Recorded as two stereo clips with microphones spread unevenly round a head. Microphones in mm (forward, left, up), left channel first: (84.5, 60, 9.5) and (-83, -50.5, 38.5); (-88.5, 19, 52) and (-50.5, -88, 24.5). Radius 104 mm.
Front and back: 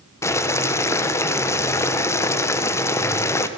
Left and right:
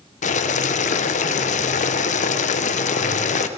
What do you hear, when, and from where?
0.2 s boiling: 105° left, 1.1 m